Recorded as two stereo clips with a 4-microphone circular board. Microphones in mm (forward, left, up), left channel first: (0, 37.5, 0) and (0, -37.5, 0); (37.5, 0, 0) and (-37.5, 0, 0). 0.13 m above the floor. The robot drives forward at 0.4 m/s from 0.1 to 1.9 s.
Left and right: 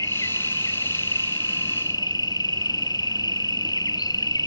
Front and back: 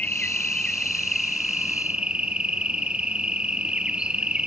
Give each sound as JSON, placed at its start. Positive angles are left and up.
{"t": 0.0, "sound": "an insect", "azimuth_deg": 70, "distance_m": 1.3}